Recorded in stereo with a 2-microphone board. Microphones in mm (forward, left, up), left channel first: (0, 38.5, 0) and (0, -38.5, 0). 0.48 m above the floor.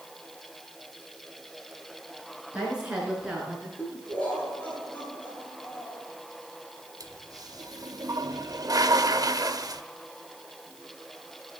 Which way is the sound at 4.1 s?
15° left (ahead or behind).